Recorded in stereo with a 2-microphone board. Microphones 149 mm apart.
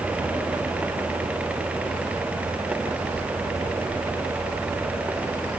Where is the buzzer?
I don't hear a buzzer.